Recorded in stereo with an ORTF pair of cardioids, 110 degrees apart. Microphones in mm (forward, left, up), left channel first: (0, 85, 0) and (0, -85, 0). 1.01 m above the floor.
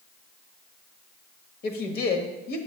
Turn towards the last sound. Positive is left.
turn(degrees=65)